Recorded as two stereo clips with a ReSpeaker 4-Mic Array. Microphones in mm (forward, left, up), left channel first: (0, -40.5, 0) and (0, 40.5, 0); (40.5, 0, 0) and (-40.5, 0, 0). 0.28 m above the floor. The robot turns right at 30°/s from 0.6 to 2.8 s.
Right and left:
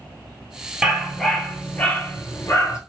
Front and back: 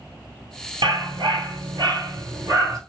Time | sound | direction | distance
0.8 | a dog barking | 175° left | 1.4 m